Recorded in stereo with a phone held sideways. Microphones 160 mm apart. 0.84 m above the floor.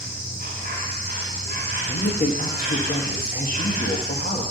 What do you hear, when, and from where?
0.0 s an insect: 60° right (ahead or behind), 2.5 m
1.9 s a woman speaking: 60° left (ahead or behind), 1.2 m